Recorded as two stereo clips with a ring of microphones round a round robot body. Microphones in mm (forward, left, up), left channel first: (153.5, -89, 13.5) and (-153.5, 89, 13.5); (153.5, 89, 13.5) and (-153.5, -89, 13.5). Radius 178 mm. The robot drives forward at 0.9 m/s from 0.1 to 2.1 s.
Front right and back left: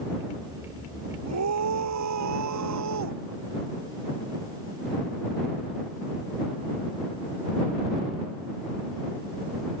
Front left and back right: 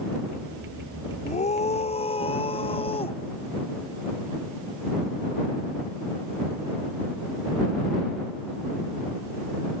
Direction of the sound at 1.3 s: 100° left.